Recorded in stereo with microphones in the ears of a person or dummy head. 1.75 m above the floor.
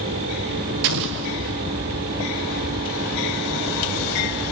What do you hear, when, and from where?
0.8 s an explosion: 50° right (ahead or behind), 0.6 m